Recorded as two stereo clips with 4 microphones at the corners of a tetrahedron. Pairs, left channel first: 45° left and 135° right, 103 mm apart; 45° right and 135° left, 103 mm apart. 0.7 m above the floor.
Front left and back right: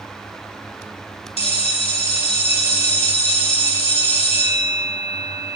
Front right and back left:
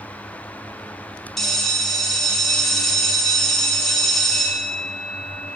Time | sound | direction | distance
1.4 | a bell | 40° left | 3.5 m